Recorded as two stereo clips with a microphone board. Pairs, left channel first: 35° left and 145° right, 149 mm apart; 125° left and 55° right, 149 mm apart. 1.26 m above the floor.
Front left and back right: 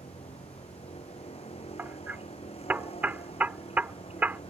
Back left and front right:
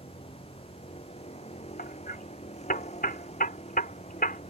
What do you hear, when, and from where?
0.0 s a vehicle: 80° left
1.8 s hammering: 135° left